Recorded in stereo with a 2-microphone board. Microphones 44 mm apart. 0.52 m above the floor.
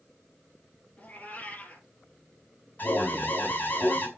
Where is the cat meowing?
35° left (ahead or behind), 3 m.